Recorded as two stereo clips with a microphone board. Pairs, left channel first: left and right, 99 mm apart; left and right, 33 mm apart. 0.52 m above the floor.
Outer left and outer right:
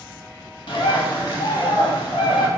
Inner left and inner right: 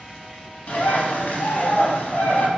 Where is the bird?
60° left (ahead or behind), 0.6 m.